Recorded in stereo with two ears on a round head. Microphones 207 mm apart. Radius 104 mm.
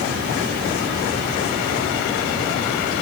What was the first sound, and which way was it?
Only background noise.